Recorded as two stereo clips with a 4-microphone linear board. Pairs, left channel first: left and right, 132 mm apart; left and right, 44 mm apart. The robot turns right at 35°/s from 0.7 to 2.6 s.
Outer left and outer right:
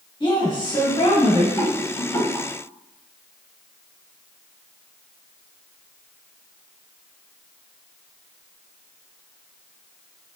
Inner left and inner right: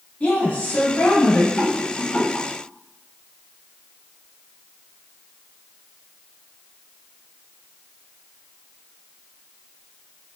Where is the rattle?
15° left (ahead or behind), 1.5 m; by 2.5 s 20° left (ahead or behind), 1.5 m.